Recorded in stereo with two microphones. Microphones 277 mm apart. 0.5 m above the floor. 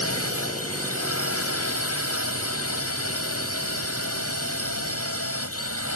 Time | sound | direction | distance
0.0 | a drone | 65° left (ahead or behind) | ?